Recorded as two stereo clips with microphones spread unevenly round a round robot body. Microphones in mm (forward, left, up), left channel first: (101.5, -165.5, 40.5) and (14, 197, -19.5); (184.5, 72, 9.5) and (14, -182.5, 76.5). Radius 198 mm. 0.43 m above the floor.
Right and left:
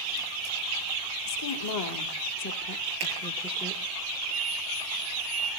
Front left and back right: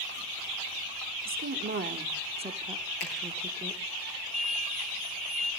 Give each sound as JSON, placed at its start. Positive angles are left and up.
{"t": 1.2, "sound": "a woman speaking", "azimuth_deg": -80, "distance_m": 1.6}
{"t": 3.0, "sound": "a finger snap", "azimuth_deg": 85, "distance_m": 8.5}
{"t": 4.3, "sound": "an explosion", "azimuth_deg": 125, "distance_m": 4.0}